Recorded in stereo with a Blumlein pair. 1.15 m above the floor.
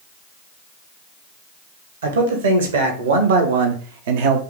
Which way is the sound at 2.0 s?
65° right.